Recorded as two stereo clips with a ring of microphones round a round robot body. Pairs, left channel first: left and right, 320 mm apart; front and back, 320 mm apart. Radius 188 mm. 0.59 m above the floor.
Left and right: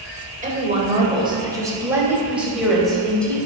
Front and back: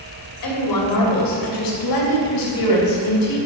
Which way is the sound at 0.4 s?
25° right.